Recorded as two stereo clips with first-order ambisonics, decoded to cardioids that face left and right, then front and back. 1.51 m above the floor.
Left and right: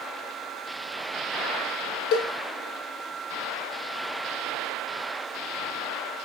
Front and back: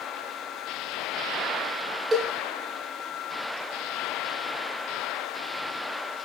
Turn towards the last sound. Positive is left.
turn(degrees=110)